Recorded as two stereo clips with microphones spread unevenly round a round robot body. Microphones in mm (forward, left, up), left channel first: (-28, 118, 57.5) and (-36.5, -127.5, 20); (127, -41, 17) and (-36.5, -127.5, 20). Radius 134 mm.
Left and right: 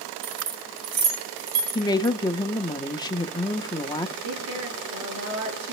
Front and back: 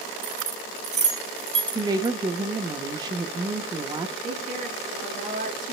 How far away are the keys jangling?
About 3.5 m.